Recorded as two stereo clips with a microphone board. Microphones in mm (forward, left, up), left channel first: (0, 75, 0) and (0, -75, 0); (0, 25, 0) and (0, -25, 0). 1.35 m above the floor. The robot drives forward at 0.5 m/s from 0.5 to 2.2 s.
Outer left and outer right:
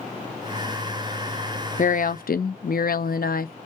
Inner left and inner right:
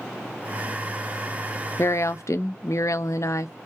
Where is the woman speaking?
60° left (ahead or behind), 0.6 m; by 3.5 s 75° left (ahead or behind), 0.5 m.